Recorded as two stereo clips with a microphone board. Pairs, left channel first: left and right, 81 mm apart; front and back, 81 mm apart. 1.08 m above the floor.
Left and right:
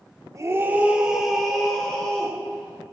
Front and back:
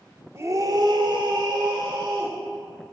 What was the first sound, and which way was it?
A scream, 130° right.